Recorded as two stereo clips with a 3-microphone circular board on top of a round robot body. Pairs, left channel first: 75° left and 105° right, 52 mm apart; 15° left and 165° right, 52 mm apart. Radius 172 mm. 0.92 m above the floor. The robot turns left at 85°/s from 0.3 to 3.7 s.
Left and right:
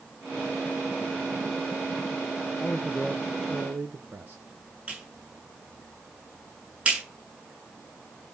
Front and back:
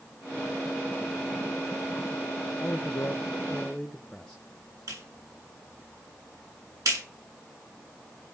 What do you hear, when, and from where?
2.6 s a man speaking: 30° left, 1.4 m; by 4.4 s 65° right, 1.4 m
4.9 s a clap: 175° right, 9 m